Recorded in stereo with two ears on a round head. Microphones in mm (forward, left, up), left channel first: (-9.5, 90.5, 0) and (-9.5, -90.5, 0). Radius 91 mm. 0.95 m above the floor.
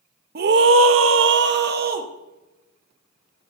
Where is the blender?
No blender in this recording.